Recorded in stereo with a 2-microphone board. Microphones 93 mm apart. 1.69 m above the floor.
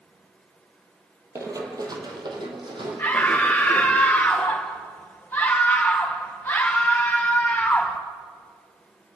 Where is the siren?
I don't hear a siren.